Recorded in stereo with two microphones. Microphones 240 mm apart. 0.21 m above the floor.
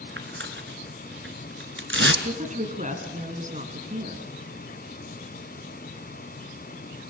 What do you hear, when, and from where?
0.2 s tearing paper: 55° right (ahead or behind), 1.5 m
2.2 s a woman speaking: 35° right (ahead or behind), 2.5 m